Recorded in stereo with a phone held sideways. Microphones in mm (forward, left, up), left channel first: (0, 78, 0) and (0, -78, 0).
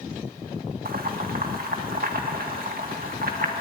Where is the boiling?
70° right (ahead or behind), 1.6 m.